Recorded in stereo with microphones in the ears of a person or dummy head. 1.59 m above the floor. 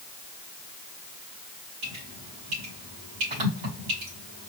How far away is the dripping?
About 2 m.